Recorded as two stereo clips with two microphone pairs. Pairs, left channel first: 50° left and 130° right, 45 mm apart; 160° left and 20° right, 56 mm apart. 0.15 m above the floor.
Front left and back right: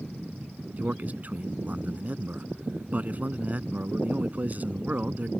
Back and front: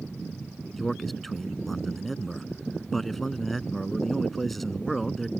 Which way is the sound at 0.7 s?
110° right.